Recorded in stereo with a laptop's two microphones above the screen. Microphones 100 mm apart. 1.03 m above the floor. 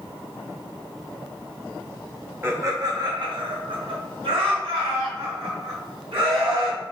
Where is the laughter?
25° right (ahead or behind), 0.7 m; by 6.8 s 75° right (ahead or behind), 2.5 m.